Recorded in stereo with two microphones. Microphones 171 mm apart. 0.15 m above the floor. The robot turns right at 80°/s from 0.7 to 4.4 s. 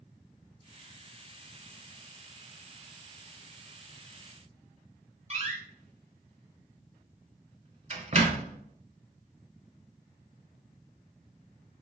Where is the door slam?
40° right (ahead or behind), 1.0 m.